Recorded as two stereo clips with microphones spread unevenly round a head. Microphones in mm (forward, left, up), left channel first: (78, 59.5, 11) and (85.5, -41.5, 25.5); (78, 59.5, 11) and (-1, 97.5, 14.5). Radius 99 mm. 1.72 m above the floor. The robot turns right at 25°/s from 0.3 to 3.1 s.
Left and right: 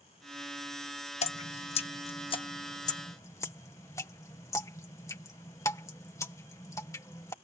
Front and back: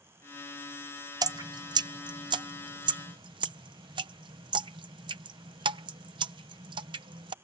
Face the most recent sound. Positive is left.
turn(degrees=170)